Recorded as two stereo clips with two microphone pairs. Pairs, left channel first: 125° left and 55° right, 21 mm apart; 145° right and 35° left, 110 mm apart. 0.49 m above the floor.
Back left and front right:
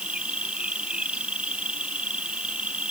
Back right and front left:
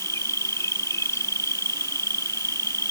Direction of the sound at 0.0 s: 80° right.